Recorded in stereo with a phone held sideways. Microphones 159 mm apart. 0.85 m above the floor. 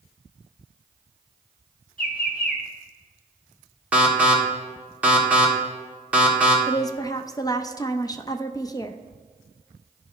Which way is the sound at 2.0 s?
65° left (ahead or behind).